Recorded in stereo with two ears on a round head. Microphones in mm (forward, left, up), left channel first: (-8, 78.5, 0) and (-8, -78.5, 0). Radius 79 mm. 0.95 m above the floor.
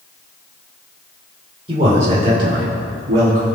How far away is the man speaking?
About 3 m.